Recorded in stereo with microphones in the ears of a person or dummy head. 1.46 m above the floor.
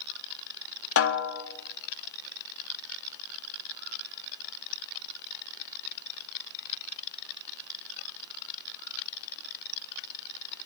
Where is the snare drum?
70° left (ahead or behind), 1.2 m.